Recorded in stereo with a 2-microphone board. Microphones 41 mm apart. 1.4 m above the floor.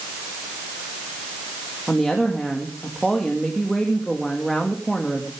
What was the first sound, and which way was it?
A woman speaking, centre (ahead or behind).